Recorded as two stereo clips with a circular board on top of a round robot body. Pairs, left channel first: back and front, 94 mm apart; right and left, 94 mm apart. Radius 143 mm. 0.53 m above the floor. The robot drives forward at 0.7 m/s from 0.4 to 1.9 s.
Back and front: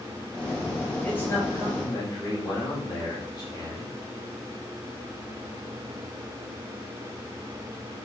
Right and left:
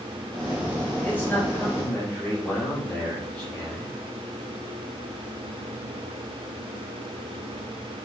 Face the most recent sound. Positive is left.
turn(degrees=-155)